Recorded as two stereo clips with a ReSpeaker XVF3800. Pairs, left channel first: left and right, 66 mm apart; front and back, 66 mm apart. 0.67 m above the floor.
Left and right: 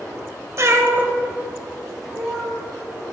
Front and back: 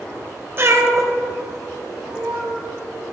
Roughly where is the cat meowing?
Behind right.